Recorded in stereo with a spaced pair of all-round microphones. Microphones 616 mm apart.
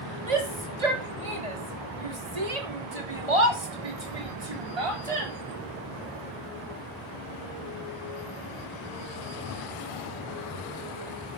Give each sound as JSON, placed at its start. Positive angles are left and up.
{"t": 0.3, "sound": "a shout", "side_deg": -85, "distance_m": 3.0}